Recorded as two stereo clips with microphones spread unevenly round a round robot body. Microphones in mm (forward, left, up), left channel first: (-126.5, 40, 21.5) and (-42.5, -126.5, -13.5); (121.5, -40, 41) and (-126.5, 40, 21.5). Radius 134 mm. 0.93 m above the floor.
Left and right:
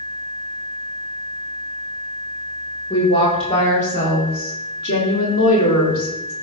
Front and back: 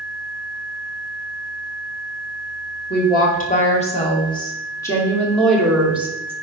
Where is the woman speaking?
40° left, 2.5 m; by 6.3 s 80° left, 2.5 m.